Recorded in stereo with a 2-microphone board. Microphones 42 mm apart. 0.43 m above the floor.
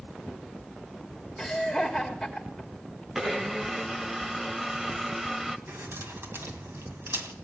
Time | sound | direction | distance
1.4 | laughter | 5° left (ahead or behind) | 1.5 m
3.1 | a blender | 10° right (ahead or behind) | 0.7 m
5.7 | keys jangling | 70° right (ahead or behind) | 2 m